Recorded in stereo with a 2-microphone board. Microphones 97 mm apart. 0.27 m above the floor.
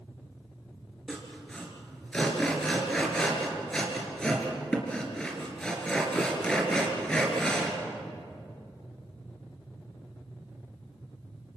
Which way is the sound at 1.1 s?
10° left (ahead or behind).